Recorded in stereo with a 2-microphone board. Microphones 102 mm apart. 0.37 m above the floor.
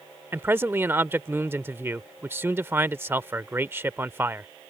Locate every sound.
0.3 s a man speaking: 20° right (ahead or behind)